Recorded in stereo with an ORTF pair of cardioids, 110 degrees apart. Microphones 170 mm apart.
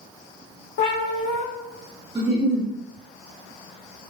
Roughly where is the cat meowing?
Left.